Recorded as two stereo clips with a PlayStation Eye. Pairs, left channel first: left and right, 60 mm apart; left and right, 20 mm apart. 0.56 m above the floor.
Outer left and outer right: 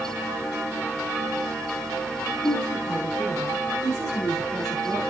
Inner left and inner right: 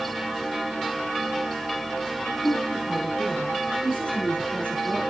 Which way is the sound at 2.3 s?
80° left.